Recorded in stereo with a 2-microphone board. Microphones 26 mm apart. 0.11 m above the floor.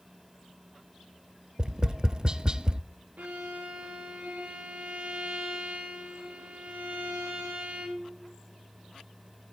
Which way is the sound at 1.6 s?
25° right (ahead or behind).